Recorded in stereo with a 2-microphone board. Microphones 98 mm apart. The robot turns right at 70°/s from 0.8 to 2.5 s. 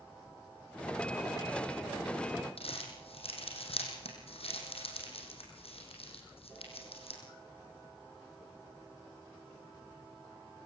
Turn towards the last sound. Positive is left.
turn(degrees=75)  # may be behind; listen again after turning